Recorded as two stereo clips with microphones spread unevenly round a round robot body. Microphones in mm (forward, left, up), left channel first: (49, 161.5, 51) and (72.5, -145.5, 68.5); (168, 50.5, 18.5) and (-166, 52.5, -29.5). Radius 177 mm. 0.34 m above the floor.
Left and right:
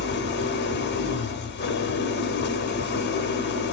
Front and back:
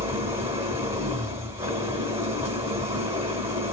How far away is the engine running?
About 0.8 m.